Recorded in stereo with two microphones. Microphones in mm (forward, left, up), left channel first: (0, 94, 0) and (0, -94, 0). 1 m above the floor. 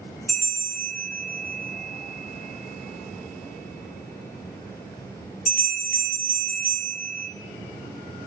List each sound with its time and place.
0.3 s a bell: 50° left (ahead or behind), 0.5 m